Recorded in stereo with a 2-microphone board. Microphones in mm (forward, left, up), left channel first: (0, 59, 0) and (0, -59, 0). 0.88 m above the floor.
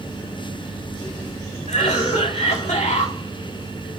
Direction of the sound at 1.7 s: 75° left (ahead or behind).